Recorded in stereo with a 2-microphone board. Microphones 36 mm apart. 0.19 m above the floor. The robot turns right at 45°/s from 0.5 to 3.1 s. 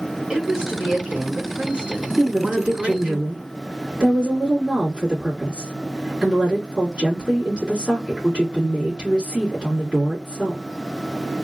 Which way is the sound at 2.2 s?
105° right.